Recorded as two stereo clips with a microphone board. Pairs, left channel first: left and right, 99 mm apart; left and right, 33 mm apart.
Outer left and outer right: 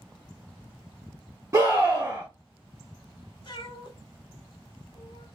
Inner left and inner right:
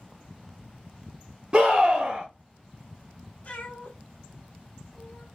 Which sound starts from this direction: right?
A scream, at 1.5 s.